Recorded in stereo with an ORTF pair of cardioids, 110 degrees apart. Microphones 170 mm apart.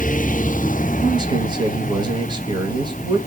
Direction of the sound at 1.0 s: 25° right.